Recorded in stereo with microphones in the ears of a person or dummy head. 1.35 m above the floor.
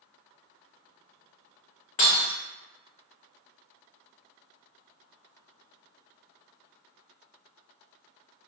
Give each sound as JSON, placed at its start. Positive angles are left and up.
{"t": 2.0, "sound": "breaking glass", "side_deg": 40, "distance_m": 0.6}